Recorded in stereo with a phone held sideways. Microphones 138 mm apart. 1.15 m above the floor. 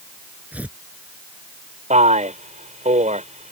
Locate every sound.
0.5 s tearing paper: 10° right (ahead or behind)
1.9 s a man speaking: 55° right (ahead or behind)